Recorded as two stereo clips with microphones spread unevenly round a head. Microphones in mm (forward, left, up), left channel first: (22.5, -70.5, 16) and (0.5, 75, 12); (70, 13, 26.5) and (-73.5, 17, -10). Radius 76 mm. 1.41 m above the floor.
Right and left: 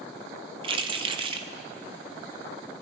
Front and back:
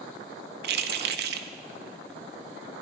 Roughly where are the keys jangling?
Behind.